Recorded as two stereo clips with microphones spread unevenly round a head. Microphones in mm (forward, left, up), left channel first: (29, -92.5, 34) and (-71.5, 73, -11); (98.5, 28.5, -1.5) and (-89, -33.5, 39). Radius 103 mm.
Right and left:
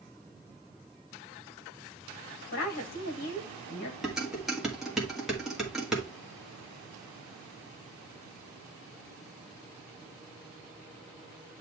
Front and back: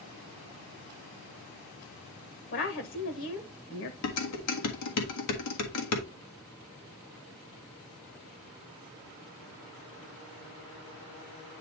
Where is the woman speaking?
10° right, 1.3 m.